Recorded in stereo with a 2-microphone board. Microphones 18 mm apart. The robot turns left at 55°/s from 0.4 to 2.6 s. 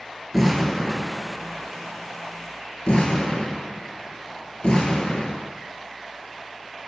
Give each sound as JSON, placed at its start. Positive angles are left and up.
{"t": 0.3, "sound": "an explosion", "side_deg": -5, "distance_m": 1.0}